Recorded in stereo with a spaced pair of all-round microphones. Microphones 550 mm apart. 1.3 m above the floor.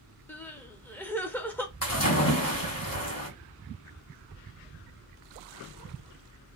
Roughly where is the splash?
Left.